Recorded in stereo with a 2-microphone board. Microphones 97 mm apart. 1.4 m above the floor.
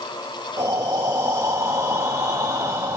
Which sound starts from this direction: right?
Breathing, at 0.6 s.